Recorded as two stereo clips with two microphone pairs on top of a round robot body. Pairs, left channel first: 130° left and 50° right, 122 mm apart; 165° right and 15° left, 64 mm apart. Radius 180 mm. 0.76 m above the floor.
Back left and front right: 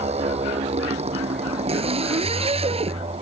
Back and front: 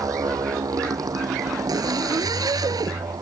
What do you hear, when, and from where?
0.0 s a motorcycle: 15° right; by 3.2 s 10° right
1.7 s a zipper: 10° right